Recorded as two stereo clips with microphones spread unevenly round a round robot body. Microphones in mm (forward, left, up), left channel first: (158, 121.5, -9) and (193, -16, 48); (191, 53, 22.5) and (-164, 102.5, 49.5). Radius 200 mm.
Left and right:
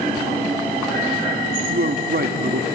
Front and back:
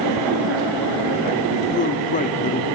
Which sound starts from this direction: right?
A man speaking, at 1.7 s.